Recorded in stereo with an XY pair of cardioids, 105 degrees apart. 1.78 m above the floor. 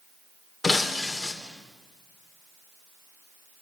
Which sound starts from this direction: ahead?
Breaking glass, at 0.6 s.